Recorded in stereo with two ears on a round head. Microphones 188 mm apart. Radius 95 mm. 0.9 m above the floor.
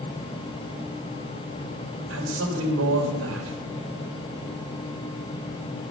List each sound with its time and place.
2.1 s a man speaking: 75° right (ahead or behind), 3 m